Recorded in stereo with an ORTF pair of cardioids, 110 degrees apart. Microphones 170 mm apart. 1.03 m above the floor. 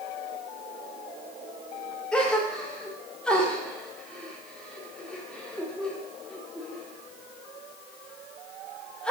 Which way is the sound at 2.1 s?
5° left.